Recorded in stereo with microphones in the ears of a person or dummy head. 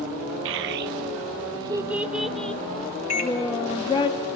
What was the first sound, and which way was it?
A child speaking, 70° right (ahead or behind).